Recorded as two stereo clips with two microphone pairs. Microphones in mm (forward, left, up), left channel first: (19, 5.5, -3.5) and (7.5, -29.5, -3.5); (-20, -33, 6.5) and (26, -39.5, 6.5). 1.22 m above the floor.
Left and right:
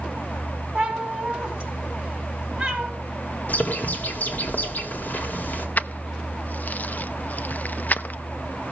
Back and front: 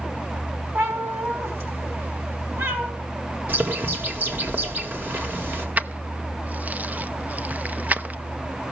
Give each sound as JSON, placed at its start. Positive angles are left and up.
{"t": 0.8, "sound": "a cat meowing", "azimuth_deg": -40, "distance_m": 4.0}
{"t": 3.5, "sound": "a bird", "azimuth_deg": 35, "distance_m": 1.9}
{"t": 5.8, "sound": "keys jangling", "azimuth_deg": 35, "distance_m": 0.5}